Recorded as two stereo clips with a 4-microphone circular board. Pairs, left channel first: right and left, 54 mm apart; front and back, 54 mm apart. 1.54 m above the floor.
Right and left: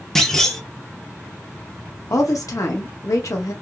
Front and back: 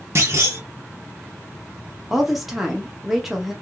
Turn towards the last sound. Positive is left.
turn(degrees=-95)